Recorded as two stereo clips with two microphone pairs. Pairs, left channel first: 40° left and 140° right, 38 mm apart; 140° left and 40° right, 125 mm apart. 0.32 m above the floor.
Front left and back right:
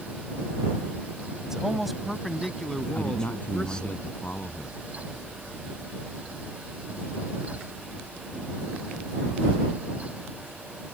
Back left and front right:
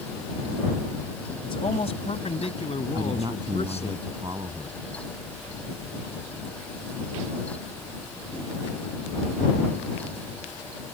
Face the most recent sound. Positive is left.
turn(degrees=10)